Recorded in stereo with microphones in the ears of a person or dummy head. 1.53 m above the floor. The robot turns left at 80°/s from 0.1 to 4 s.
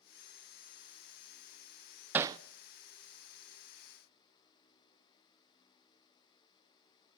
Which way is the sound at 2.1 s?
10° right (ahead or behind).